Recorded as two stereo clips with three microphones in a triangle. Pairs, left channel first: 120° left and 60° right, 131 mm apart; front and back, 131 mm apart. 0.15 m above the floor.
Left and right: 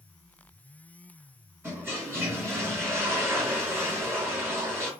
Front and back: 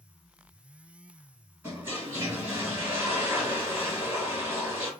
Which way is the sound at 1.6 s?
115° right.